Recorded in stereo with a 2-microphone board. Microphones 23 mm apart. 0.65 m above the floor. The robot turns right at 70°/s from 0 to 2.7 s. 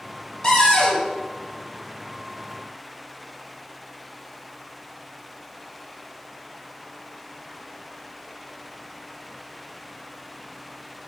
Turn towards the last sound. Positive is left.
turn(degrees=-170)